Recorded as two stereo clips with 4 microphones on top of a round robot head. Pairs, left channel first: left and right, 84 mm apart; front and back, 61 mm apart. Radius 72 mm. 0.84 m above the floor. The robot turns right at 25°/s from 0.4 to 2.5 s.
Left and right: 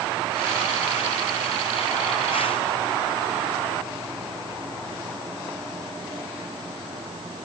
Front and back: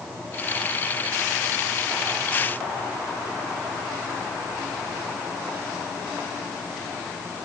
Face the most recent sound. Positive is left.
No sound to turn to.